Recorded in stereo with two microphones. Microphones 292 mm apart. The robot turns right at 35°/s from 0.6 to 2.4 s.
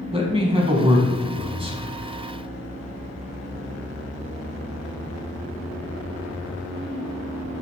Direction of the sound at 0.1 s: 20° right (ahead or behind).